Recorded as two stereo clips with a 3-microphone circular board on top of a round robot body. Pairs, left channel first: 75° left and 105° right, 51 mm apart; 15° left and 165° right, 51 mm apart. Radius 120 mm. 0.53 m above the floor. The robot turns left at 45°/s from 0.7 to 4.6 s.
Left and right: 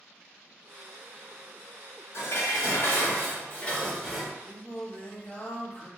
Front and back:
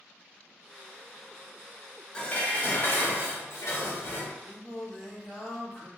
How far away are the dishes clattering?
About 1.1 m.